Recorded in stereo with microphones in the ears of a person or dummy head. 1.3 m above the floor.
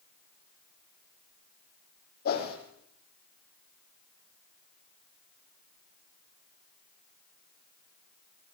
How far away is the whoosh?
About 8 m.